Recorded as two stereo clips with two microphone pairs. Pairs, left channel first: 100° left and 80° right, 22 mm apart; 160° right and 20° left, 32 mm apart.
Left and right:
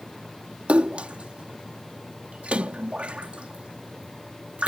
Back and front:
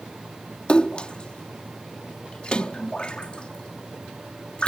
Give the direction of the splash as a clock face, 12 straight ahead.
3 o'clock.